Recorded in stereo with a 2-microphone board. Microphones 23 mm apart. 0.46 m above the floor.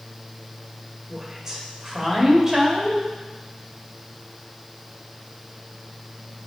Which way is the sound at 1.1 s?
25° right (ahead or behind).